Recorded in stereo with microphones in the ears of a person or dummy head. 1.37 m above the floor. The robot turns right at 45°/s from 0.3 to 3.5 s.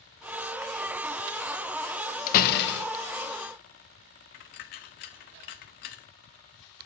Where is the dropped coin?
40° left (ahead or behind), 0.7 m.